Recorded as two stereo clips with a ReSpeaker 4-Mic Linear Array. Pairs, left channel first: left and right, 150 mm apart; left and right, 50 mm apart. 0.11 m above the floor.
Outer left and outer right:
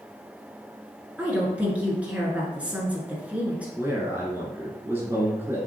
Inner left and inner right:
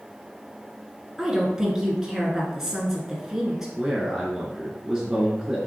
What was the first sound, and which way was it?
A woman speaking, 10° right (ahead or behind).